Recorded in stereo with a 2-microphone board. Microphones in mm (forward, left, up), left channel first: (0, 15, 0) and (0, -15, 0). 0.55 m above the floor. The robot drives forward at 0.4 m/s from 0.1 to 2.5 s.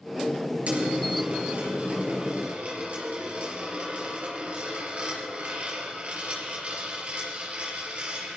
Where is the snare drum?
I don't hear a snare drum.